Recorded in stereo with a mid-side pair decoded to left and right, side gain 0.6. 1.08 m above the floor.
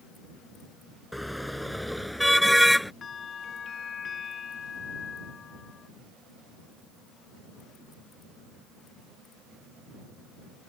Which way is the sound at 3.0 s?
35° left.